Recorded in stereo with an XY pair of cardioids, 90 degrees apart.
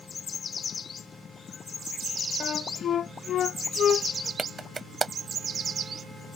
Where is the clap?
30° right.